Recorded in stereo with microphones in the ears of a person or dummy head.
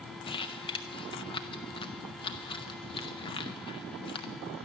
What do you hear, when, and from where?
0.2 s crumpling: 25° left (ahead or behind), 0.6 m